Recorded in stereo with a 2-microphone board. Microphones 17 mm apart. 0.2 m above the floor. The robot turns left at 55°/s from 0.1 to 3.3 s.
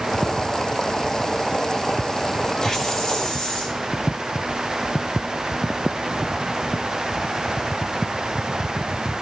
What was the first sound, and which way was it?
A hiss, 170° left.